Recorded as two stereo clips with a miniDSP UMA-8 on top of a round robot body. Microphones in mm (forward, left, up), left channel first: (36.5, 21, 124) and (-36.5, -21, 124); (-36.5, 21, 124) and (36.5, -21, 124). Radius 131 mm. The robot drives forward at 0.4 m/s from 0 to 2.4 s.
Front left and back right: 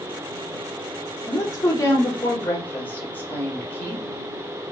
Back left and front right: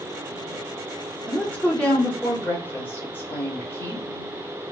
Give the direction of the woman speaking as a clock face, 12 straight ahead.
10 o'clock.